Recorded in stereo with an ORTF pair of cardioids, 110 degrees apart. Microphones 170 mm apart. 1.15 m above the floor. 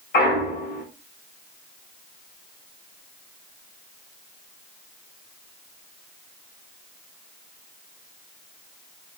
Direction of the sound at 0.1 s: 60° left.